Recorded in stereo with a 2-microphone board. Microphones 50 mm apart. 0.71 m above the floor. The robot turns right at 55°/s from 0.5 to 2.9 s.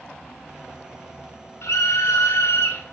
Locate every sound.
1.6 s a scream: 60° left, 10 m; by 2.9 s 130° left, 10 m